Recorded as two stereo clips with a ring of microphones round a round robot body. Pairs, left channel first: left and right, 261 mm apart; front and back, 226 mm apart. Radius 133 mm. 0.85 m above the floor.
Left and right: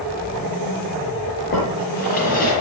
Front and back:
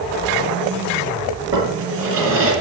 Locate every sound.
1.5 s a drawer: 150° left, 8 m